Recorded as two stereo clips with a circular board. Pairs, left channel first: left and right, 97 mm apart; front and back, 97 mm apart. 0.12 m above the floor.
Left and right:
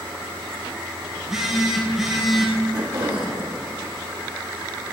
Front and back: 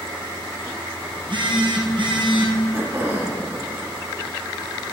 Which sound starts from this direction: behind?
A phone buzzing, at 1.2 s.